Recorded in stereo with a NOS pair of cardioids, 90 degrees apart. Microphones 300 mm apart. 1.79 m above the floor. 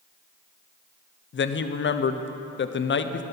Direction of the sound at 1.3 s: 40° left.